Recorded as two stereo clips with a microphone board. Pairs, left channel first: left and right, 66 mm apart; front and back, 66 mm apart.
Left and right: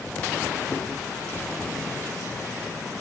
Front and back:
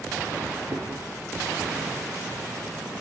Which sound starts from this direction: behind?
Chewing, at 0.7 s.